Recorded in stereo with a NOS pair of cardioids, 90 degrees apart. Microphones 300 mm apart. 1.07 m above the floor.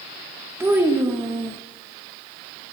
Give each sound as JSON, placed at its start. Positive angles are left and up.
{"t": 0.6, "sound": "a child speaking", "azimuth_deg": -10, "distance_m": 0.7}